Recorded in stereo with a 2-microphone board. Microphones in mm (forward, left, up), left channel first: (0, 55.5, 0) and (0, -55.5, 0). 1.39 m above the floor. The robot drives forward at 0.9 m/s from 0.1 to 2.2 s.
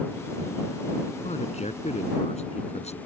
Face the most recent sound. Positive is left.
turn(degrees=80)